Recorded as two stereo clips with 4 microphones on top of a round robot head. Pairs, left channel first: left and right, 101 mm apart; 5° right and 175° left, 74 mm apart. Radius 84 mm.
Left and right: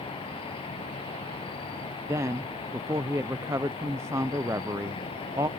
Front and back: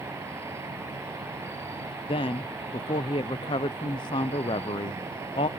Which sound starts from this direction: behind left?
An insect, at 0.0 s.